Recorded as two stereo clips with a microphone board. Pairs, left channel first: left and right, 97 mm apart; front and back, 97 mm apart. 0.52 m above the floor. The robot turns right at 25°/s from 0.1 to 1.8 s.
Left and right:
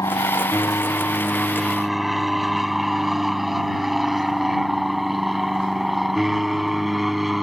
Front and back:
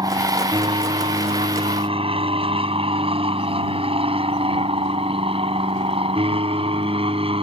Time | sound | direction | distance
0.0 | an aircraft | 140° left | ?